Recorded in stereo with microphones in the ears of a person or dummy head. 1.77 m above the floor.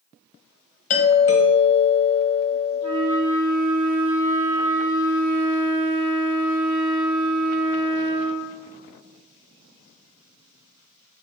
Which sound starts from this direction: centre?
A flute, at 2.8 s.